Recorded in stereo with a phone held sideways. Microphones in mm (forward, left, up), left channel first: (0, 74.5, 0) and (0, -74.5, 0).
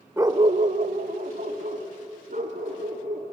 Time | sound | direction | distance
0.2 | a dog barking | 15° right (ahead or behind) | 0.8 m